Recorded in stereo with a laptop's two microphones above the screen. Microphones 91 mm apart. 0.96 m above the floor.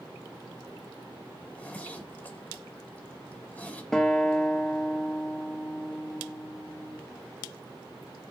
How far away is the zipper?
About 1.8 m.